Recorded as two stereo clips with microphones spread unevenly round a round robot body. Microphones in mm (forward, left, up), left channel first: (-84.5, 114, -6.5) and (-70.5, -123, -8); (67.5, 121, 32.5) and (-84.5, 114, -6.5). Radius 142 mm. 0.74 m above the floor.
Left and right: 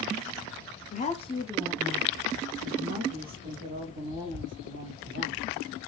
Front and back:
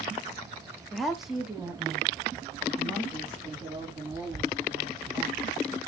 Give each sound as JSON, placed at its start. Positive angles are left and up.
{"t": 0.9, "sound": "a woman speaking", "azimuth_deg": 115, "distance_m": 1.0}